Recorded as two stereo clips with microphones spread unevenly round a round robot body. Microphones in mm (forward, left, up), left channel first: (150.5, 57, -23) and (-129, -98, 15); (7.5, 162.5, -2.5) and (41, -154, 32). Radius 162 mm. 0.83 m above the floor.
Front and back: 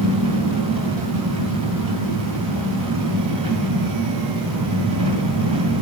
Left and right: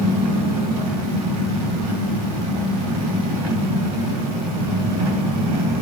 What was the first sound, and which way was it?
An engine running, 80° right.